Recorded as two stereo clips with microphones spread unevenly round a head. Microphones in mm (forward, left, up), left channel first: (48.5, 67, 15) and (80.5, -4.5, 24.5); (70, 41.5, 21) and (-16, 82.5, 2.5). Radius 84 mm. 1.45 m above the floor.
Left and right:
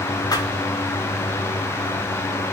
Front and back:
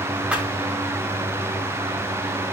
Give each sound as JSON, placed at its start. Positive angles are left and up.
{"t": 0.3, "sound": "a thud", "azimuth_deg": 75, "distance_m": 7.0}